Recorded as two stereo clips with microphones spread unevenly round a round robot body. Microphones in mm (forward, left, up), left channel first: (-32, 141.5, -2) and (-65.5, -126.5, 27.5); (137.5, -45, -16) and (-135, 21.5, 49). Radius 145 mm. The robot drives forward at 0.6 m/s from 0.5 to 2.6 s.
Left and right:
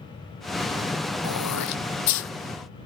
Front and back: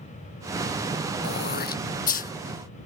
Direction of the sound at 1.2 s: 45° left.